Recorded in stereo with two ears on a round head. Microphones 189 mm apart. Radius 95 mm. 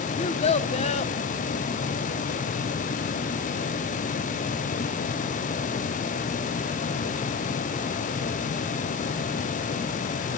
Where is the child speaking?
30° left (ahead or behind), 1.1 m.